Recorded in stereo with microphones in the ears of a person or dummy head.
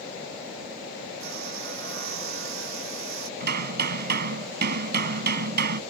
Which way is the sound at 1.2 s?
70° right (ahead or behind).